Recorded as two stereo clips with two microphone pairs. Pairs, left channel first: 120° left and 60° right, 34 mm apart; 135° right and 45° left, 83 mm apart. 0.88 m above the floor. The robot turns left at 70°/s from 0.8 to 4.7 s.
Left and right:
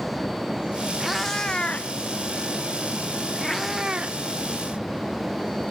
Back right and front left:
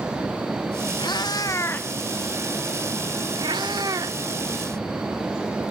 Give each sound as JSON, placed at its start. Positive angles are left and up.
{"t": 1.0, "sound": "a cat meowing", "azimuth_deg": -145, "distance_m": 0.6}